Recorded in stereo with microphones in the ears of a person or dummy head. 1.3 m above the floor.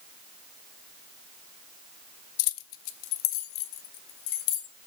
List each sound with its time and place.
2.4 s keys jangling: 70° left (ahead or behind), 0.5 m